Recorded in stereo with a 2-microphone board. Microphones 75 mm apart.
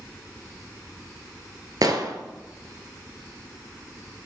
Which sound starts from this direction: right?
An explosion, at 1.8 s.